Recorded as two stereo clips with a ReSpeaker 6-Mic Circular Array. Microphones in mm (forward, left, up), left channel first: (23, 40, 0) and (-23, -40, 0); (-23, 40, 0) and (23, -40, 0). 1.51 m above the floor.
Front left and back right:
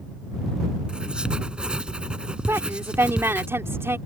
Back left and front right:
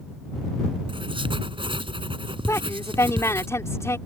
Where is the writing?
40° right.